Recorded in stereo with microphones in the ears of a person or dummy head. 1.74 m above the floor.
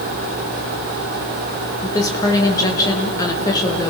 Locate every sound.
1.8 s a woman speaking: 25° left (ahead or behind), 2.5 m